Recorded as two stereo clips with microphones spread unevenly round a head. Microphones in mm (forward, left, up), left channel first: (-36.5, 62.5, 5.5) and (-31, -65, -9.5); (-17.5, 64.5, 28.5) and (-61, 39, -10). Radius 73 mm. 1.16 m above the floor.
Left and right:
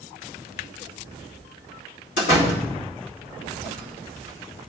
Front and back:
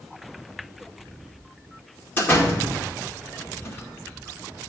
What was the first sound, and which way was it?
A door slam, 70° left.